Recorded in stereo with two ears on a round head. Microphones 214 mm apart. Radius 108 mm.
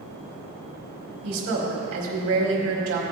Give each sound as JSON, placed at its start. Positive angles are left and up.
{"t": 1.2, "sound": "a woman speaking", "side_deg": -65, "distance_m": 2.5}